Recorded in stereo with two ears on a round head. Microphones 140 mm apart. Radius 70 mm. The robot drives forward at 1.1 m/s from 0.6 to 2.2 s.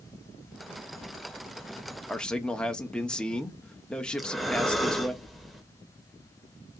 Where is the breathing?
Centre (ahead or behind), 0.6 m.